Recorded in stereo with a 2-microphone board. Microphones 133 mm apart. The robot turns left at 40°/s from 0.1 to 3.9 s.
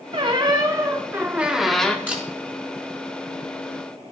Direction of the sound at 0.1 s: 115° right.